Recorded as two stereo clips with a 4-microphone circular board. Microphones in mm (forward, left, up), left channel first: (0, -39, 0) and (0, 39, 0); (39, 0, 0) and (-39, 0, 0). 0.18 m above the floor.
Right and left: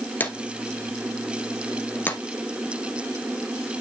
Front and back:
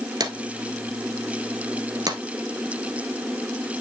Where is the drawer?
155° right, 1.3 m.